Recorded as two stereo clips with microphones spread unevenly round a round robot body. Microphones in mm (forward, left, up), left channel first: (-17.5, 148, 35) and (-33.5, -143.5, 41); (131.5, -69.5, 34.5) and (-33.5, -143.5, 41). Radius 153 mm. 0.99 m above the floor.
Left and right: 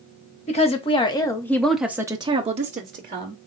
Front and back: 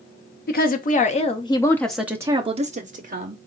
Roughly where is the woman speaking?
Ahead left.